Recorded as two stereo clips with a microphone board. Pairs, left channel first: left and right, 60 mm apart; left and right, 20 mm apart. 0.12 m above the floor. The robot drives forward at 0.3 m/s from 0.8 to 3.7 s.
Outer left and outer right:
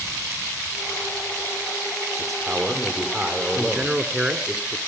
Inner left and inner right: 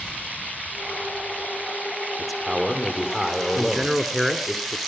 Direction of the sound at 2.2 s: Centre (ahead or behind).